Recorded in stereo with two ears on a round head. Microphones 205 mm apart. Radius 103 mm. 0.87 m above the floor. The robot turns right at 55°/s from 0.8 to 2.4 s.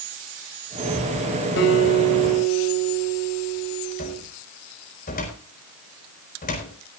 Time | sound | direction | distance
1.6 | a guitar | 55° left | 5 m
4.0 | a cupboard door | 35° left (ahead or behind) | 4.5 m